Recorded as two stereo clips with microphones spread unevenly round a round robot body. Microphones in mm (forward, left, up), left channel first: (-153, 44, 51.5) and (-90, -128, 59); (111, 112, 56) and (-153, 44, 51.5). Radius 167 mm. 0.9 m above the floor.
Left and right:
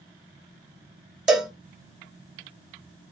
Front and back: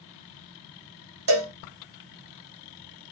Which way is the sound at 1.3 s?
155° right.